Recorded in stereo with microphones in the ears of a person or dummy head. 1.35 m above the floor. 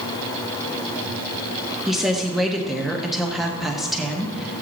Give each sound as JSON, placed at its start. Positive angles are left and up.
{"t": 1.9, "sound": "a woman speaking", "side_deg": 0, "distance_m": 1.3}